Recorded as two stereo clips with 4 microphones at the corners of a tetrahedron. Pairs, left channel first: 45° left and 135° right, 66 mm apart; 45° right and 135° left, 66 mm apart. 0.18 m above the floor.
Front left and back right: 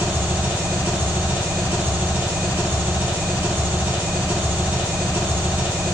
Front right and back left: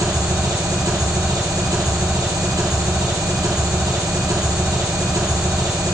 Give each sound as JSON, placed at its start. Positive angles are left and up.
{"t": 0.0, "sound": "an engine running", "azimuth_deg": 160, "distance_m": 1.6}